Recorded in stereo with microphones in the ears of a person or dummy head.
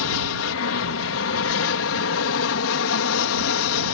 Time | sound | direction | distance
0.0 | an aircraft | 65° left (ahead or behind) | ?